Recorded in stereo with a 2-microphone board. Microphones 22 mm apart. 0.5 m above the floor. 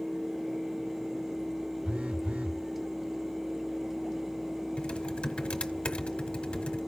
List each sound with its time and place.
1.9 s a phone buzzing: 70° right (ahead or behind), 0.5 m
4.8 s typing on a keyboard: 60° left (ahead or behind), 1.3 m